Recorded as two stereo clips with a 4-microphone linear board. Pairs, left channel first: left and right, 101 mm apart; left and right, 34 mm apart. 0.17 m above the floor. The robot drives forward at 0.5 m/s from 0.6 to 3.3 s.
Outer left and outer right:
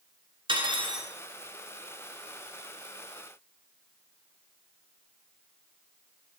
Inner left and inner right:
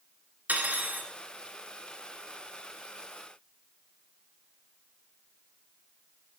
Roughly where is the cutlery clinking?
Right.